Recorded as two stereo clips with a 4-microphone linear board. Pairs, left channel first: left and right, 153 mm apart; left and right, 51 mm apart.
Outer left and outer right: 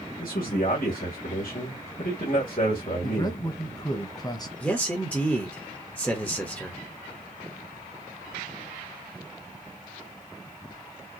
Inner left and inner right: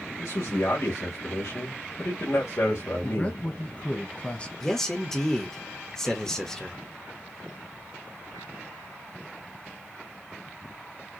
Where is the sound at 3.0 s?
25° left (ahead or behind), 1.1 m.